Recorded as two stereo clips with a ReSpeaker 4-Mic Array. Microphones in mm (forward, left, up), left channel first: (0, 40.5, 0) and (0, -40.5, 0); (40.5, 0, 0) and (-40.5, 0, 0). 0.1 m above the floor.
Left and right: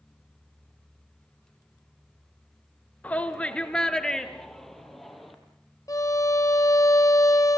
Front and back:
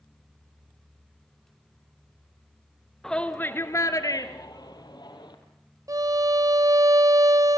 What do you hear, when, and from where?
3.0 s a shout: 70° left, 1.1 m; by 5.3 s straight ahead, 2.5 m
5.9 s a violin: 135° left, 0.6 m